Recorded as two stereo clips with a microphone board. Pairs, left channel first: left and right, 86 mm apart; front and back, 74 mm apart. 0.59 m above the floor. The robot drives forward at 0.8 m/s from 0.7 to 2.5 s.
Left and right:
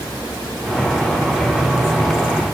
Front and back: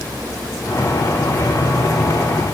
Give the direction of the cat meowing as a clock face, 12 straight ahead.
No cat meowing in this recording.